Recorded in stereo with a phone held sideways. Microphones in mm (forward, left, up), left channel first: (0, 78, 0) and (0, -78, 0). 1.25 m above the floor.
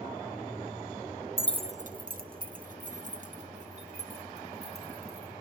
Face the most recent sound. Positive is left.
turn(degrees=-45)  # may be behind; listen again after turning